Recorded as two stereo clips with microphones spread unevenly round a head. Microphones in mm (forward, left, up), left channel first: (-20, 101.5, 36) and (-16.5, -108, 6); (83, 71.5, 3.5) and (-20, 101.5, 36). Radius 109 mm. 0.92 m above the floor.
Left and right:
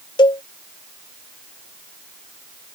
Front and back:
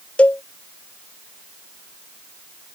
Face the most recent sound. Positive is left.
turn(degrees=85)